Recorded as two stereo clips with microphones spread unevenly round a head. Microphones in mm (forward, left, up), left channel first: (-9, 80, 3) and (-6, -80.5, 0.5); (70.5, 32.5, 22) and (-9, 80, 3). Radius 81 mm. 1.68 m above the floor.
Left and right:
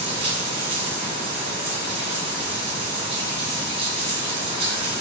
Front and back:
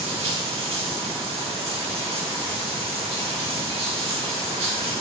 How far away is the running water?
About 2.5 m.